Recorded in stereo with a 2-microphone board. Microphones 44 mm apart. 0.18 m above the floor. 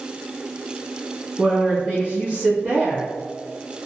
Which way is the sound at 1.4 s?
35° right (ahead or behind).